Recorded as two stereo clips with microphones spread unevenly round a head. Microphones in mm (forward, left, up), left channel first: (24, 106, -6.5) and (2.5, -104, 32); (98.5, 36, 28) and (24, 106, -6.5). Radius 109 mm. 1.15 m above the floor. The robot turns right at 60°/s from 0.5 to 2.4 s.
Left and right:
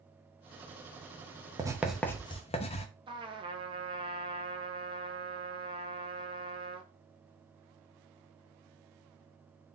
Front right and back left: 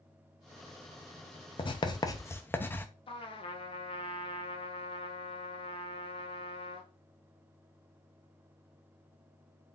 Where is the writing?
30° right, 0.6 m; by 2.9 s 20° left, 0.6 m.